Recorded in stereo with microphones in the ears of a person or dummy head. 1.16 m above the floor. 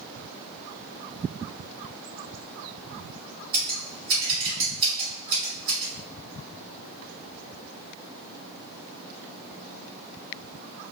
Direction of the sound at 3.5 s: 30° right (ahead or behind).